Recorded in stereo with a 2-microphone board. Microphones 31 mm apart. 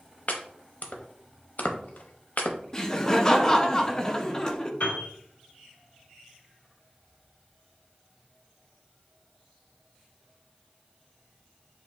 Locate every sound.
0.3 s chopping: 55° left (ahead or behind), 0.7 m
2.7 s laughter: 20° left (ahead or behind), 0.6 m
4.8 s a piano: 70° left (ahead or behind), 2.0 m